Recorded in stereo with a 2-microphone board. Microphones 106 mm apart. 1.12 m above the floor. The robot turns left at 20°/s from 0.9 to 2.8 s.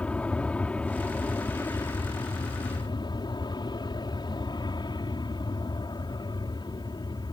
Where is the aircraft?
165° left; by 7.3 s 130° left.